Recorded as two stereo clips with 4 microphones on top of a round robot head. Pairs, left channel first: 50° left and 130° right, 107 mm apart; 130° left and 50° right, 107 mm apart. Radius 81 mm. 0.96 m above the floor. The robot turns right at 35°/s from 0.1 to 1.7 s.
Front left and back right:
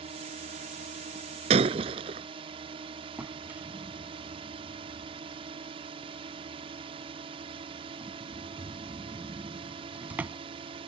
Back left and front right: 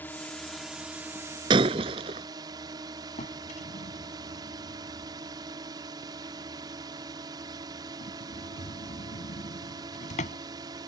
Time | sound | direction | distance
0.0 | a drone | 155° right | ?
1.5 | breaking glass | 100° right | ?
3.2 | a drawer | 150° left | ?